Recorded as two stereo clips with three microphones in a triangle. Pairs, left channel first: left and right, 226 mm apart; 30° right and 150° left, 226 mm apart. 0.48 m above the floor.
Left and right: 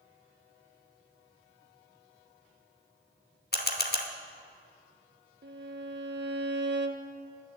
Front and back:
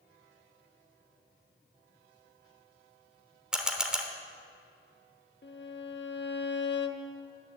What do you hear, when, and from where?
3.5 s a camera shutter: 65° left, 0.9 m
5.4 s a violin: 60° right, 0.7 m